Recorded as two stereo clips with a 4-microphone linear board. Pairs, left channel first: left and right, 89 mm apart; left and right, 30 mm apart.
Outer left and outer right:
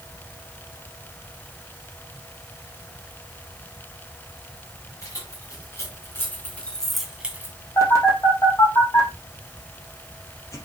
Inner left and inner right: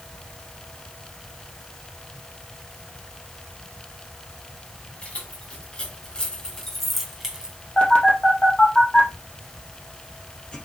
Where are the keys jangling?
40° left (ahead or behind), 4 m; by 7.6 s 25° right (ahead or behind), 1.8 m.